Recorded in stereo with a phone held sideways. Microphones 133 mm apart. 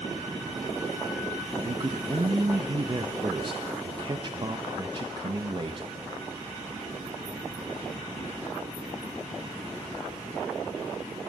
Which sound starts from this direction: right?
A man speaking, at 1.6 s.